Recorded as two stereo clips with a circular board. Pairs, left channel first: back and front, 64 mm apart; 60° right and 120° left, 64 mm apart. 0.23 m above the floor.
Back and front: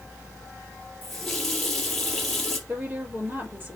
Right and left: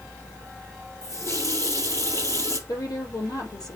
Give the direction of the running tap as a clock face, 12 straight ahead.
3 o'clock.